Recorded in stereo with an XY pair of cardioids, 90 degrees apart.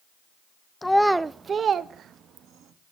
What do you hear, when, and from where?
0.8 s a child speaking: 20° left, 0.5 m; by 2.7 s 80° right, 1.5 m